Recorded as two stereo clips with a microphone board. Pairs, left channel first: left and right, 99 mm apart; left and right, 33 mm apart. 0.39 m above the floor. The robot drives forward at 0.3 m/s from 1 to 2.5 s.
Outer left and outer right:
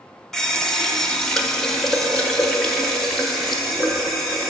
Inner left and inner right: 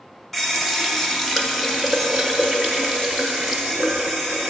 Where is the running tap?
5° left (ahead or behind), 0.5 m.